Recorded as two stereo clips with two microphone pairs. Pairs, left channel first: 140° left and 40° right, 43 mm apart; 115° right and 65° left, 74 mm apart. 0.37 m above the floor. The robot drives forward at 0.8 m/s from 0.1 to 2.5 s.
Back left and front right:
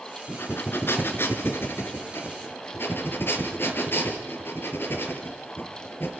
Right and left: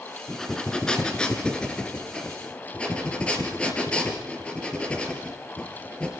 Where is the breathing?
165° left, 2.5 m; by 6.1 s 170° left, 4 m.